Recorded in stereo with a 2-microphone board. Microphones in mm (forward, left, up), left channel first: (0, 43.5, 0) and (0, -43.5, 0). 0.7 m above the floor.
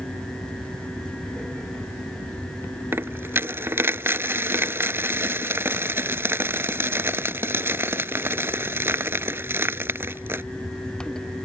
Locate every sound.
2.9 s a dropped coin: 25° right (ahead or behind)